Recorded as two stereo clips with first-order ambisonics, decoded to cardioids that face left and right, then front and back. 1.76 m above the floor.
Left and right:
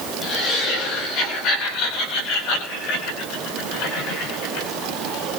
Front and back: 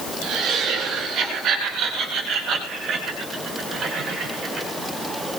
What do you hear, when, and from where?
0.2 s laughter: 135° left, 9.5 m; by 4.7 s 105° left, 10 m